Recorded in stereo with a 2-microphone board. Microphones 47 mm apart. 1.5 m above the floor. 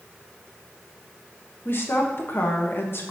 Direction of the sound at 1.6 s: 55° left (ahead or behind).